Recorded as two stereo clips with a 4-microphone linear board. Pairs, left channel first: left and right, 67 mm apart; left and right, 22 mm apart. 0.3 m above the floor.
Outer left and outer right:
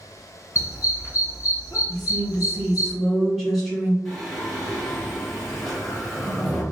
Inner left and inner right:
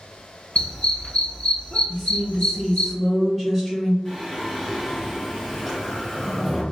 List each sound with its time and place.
0.6 s a dog barking: 50° left (ahead or behind), 1.3 m
1.9 s a woman speaking: 5° left (ahead or behind), 2.0 m
4.0 s singing: centre (ahead or behind), 1.4 m